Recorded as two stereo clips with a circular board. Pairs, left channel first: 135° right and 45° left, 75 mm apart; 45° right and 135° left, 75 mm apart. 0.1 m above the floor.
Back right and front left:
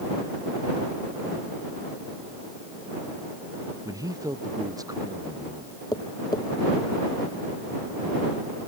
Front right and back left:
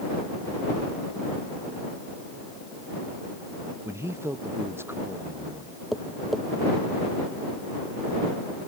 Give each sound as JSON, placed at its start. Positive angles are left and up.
{"t": 3.9, "sound": "a man speaking", "azimuth_deg": 85}
{"t": 5.9, "sound": "tapping", "azimuth_deg": -135}